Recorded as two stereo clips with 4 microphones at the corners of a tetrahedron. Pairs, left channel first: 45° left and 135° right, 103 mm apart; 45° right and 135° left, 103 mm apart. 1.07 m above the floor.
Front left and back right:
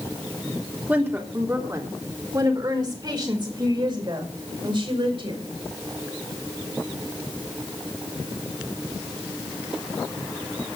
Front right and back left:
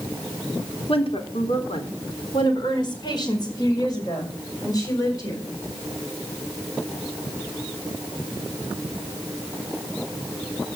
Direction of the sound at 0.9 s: 65° right.